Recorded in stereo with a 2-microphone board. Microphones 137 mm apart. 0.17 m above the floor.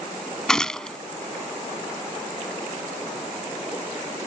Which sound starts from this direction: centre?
A gunshot, at 0.5 s.